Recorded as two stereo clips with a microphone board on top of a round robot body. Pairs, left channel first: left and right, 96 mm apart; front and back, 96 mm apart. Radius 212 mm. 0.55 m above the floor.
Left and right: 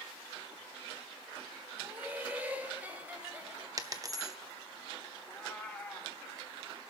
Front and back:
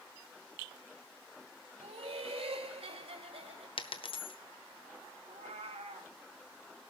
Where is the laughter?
165° right, 3.5 m.